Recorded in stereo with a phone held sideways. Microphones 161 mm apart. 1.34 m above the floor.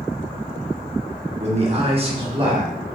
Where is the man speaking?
45° right (ahead or behind), 1.2 m; by 2.7 s 35° right (ahead or behind), 1.8 m.